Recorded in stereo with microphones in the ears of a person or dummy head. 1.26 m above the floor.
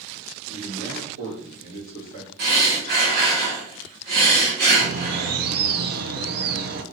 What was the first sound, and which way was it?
A man speaking, 75° right (ahead or behind).